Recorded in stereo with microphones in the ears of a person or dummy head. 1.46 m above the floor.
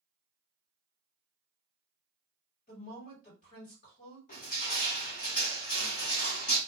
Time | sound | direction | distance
2.7 | a woman speaking | 50° left (ahead or behind) | 1.5 m
4.3 | crushing | 40° left (ahead or behind) | 1.0 m